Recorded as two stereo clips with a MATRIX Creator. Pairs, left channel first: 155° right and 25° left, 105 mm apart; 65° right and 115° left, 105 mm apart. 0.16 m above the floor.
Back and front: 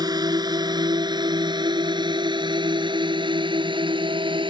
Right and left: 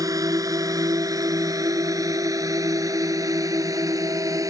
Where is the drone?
65° left; by 4.5 s 60° left.